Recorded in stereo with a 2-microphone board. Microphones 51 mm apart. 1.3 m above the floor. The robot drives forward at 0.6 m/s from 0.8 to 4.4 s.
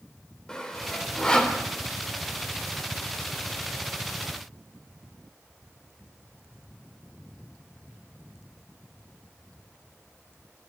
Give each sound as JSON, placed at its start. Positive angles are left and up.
{"t": 0.5, "sound": "sawing", "side_deg": 15, "distance_m": 3.0}